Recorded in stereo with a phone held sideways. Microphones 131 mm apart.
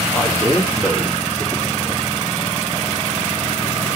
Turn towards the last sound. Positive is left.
turn(degrees=-5)  # may be behind; listen again after turning